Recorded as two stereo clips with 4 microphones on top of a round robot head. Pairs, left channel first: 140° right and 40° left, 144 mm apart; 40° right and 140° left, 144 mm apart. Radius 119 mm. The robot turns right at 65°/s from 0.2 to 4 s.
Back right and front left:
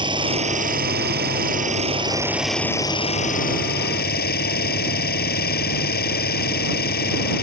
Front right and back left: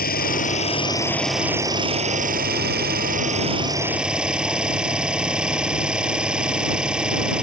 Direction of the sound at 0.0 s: 20° right.